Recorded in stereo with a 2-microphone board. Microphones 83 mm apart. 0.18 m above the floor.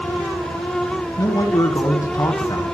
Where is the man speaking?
45° left (ahead or behind), 1.6 m.